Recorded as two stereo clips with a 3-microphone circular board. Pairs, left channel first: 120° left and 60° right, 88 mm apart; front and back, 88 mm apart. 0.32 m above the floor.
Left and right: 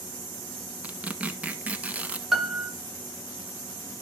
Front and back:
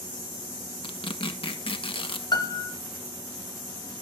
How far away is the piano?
About 1.1 m.